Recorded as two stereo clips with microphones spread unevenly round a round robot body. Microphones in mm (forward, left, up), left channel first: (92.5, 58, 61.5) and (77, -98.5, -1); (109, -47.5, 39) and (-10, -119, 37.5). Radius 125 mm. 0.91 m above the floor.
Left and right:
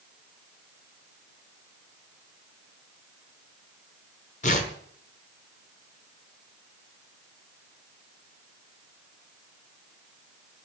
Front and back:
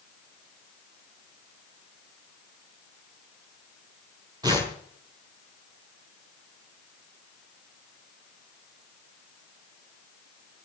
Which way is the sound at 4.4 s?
135° left.